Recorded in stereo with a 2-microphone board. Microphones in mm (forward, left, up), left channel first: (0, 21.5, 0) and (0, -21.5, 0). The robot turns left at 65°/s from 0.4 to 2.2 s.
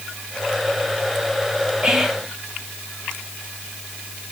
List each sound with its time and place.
1.8 s whispering: 20° right (ahead or behind), 1.4 m; by 2.4 s centre (ahead or behind), 1.4 m